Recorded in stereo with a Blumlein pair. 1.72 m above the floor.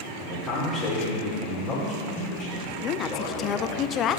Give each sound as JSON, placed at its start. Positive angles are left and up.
{"t": 0.2, "sound": "a man speaking", "azimuth_deg": 25, "distance_m": 3.0}
{"t": 2.8, "sound": "a woman speaking", "azimuth_deg": 30, "distance_m": 0.6}